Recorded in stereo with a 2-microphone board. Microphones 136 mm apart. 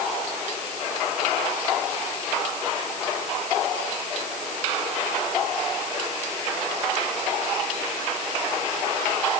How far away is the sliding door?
No sliding door in this recording.